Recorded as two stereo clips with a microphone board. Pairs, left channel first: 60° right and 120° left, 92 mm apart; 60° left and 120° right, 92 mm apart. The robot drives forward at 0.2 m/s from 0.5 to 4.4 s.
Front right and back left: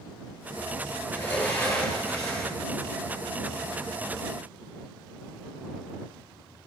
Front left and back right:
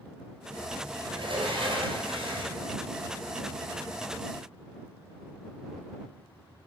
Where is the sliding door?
130° right, 2 m; by 2.6 s 135° right, 2.5 m.